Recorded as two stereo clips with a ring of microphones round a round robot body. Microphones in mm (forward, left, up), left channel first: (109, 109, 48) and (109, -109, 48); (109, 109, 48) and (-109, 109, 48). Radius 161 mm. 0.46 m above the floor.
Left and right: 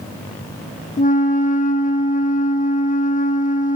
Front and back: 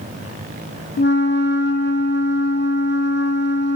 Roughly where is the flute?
Ahead left.